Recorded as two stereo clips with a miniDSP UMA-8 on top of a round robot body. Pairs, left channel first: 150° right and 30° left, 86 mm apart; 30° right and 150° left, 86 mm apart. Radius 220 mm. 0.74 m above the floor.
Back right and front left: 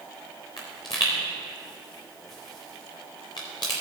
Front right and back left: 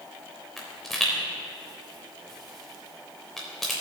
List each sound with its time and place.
0.6 s a pop: 115° right, 0.5 m